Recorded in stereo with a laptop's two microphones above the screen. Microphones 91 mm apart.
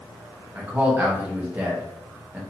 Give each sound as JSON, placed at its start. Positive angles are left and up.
{"t": 0.6, "sound": "a man speaking", "side_deg": -20, "distance_m": 0.9}